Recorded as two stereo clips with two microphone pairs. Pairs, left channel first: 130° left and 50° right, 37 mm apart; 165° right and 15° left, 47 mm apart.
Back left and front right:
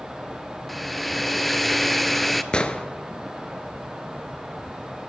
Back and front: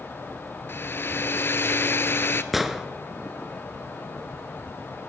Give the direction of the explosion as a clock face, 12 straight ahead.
9 o'clock.